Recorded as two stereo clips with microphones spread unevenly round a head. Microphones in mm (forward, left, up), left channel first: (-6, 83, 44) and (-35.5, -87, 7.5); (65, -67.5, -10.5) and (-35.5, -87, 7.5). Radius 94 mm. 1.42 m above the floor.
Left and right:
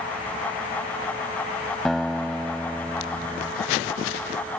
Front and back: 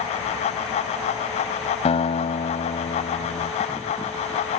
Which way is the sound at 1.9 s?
Straight ahead.